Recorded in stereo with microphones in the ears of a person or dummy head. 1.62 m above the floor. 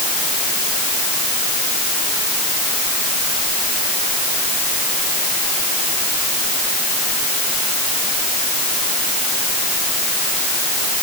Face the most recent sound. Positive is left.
No sound to turn to.